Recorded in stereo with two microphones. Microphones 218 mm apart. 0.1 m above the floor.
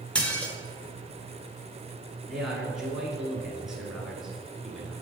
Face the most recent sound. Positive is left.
turn(degrees=0)  # may be behind; listen again after turning